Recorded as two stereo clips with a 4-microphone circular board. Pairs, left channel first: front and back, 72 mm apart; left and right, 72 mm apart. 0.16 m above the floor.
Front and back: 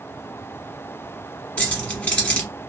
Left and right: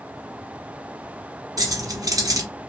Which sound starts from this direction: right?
Keys jangling, at 1.6 s.